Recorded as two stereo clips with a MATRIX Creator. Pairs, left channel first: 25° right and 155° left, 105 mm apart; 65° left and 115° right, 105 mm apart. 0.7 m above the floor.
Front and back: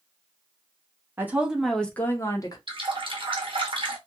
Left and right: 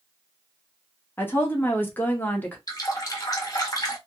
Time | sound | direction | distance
1.2 | a woman speaking | 115° left | 0.8 m
2.7 | a running tap | 120° left | 0.9 m